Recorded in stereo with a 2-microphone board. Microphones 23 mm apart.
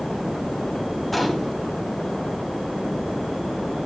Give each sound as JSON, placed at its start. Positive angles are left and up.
{"t": 1.1, "sound": "a gunshot", "side_deg": 5, "distance_m": 3.0}